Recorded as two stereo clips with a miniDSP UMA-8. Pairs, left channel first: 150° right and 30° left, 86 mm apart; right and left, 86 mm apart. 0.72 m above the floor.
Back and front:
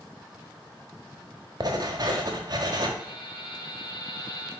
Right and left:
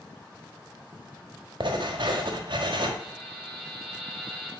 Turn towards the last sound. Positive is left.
turn(degrees=175)